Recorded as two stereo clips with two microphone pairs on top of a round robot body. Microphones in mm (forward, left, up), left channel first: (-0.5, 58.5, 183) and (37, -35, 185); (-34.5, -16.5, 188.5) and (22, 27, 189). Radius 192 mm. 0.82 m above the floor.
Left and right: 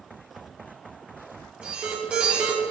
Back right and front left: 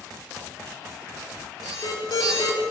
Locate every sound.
1.6 s an alarm: 145° right, 6 m